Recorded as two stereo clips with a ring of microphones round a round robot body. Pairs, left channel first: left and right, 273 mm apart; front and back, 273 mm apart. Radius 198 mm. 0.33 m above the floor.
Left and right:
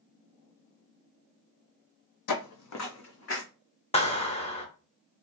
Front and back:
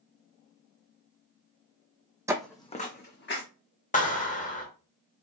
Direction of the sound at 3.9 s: 40° left.